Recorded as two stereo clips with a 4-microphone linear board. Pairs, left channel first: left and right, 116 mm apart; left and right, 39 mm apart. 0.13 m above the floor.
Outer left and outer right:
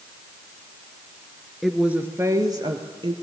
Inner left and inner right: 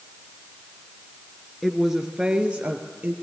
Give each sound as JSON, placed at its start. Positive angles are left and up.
{"t": 1.6, "sound": "a woman speaking", "side_deg": 0, "distance_m": 1.8}